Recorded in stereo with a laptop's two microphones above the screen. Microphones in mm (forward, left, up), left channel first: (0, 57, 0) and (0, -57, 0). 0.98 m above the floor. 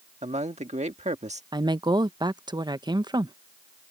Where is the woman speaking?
40° right (ahead or behind).